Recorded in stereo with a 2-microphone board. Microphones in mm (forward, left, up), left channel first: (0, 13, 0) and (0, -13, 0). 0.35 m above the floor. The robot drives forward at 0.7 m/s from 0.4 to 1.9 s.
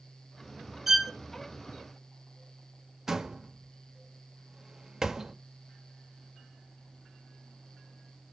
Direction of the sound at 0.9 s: 10° right (ahead or behind).